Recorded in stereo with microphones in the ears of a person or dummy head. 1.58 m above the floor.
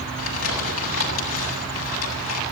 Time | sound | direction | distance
0.2 | crumpling | 85° left | 8 m